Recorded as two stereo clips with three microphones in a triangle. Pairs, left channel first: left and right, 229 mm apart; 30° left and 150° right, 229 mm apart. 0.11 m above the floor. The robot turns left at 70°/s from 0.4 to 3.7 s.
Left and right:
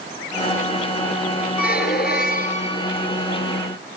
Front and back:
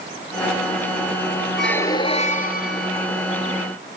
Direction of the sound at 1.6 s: 120° left.